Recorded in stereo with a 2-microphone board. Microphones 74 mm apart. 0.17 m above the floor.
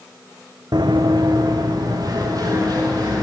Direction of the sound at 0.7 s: 80° right.